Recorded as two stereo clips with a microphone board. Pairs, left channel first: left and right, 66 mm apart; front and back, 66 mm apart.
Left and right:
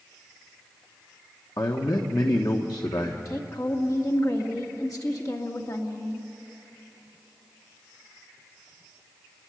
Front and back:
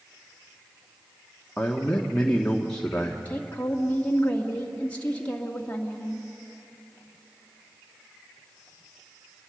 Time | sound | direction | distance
1.6 | a man speaking | 75° left | 1.3 m
3.2 | a woman speaking | 65° left | 1.9 m